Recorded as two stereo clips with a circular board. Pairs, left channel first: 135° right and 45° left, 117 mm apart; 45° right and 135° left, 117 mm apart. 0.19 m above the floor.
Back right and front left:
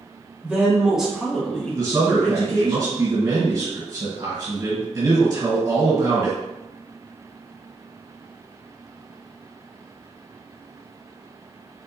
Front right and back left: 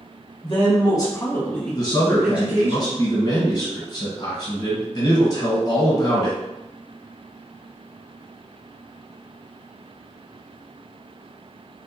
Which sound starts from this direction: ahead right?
A woman speaking, at 0.4 s.